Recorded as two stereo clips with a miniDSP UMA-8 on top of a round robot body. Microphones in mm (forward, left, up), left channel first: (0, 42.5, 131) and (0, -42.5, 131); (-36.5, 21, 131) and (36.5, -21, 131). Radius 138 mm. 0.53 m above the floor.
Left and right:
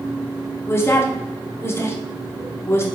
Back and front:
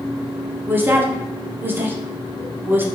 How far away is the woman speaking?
About 1.1 m.